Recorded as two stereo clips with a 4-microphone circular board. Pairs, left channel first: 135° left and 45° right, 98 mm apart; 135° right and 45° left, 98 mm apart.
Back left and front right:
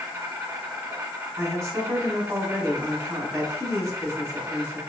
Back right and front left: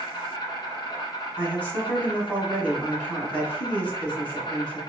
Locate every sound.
0.0 s an insect: 100° right, 1.4 m
1.4 s a woman speaking: 75° right, 1.7 m